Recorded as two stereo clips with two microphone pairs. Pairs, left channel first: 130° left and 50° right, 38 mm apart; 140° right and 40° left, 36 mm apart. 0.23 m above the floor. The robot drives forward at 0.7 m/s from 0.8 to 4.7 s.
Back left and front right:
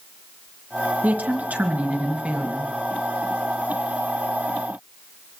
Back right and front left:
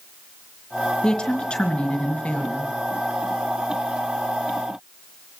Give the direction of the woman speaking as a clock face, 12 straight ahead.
3 o'clock.